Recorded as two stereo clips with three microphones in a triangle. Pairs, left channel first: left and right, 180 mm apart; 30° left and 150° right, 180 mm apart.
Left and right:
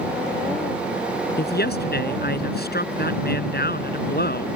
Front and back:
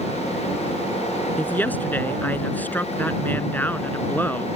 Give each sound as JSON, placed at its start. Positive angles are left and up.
{"t": 1.4, "sound": "a woman speaking", "azimuth_deg": 110}